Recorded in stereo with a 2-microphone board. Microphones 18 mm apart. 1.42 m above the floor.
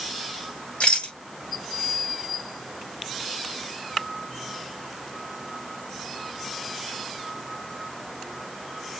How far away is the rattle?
About 5.5 m.